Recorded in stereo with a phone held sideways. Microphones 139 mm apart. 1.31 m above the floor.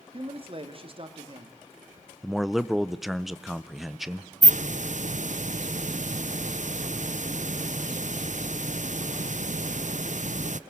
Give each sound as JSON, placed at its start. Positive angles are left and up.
{"t": 0.1, "sound": "a man speaking", "side_deg": -40, "distance_m": 2.0}
{"t": 2.2, "sound": "a man speaking", "side_deg": 0, "distance_m": 0.8}
{"t": 4.4, "sound": "a hiss", "side_deg": -65, "distance_m": 0.5}